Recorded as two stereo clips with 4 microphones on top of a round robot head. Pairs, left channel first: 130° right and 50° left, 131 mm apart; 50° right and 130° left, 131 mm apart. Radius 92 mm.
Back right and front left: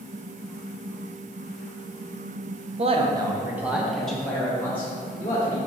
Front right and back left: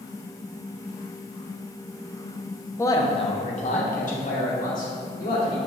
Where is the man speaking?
20° left, 1.0 m; by 5.6 s 60° right, 3 m.